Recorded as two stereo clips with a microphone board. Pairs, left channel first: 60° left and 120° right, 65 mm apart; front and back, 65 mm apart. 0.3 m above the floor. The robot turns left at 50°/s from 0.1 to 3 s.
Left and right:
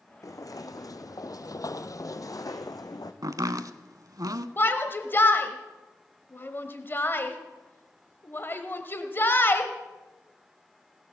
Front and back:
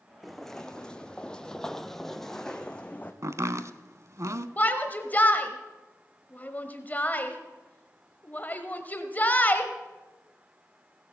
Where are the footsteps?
90° left, 1.2 m; by 3.1 s 70° left, 1.3 m.